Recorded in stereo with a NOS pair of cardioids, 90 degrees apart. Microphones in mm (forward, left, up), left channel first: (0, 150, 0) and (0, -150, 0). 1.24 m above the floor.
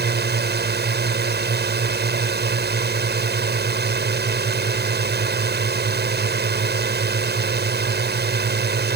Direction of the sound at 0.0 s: 35° right.